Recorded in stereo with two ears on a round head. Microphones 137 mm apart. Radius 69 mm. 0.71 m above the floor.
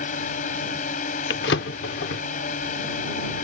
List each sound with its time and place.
0.0 s a drone: 55° left (ahead or behind)
1.3 s a drawer: 80° left